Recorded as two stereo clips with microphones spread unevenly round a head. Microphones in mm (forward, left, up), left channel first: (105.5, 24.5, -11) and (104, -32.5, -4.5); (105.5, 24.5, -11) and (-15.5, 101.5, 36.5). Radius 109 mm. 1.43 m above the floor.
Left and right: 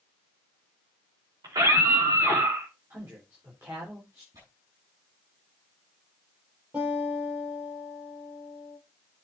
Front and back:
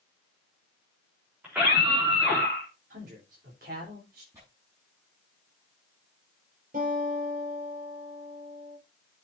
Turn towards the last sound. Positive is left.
turn(degrees=-170)